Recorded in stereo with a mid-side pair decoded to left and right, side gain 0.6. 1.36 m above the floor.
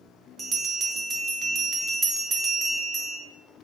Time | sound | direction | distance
0.4 | a bell | 35° right | 0.8 m